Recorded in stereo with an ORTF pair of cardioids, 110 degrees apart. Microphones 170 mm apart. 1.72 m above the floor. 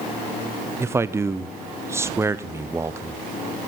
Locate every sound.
0.8 s a man speaking: 15° right, 0.6 m